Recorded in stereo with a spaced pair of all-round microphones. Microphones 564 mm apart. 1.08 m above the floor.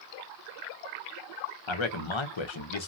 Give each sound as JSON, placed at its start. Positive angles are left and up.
{"t": 1.7, "sound": "a man speaking", "side_deg": 60, "distance_m": 0.7}